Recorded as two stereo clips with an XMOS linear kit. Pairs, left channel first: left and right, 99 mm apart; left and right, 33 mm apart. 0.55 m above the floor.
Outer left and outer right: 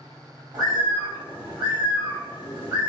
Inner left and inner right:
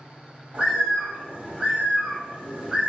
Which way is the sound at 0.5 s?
40° right (ahead or behind).